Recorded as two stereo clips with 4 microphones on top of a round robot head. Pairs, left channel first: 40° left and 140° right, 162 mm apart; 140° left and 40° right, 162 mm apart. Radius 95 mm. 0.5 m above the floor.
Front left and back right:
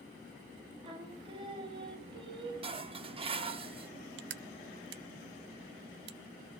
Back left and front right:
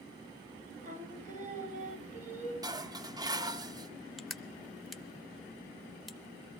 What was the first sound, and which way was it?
Singing, 80° right.